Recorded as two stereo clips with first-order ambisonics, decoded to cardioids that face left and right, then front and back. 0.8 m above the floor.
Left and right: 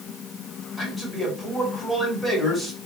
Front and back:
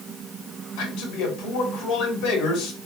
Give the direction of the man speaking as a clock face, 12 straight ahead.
12 o'clock.